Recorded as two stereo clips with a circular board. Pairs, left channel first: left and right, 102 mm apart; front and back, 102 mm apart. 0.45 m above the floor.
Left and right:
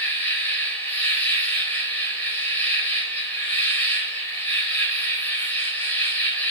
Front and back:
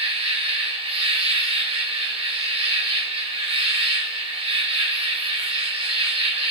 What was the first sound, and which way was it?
An insect, 160° left.